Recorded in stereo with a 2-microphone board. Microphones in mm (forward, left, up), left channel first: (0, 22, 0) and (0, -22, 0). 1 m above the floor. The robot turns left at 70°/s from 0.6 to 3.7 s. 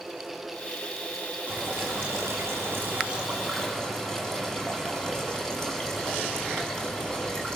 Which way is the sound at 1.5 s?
40° right.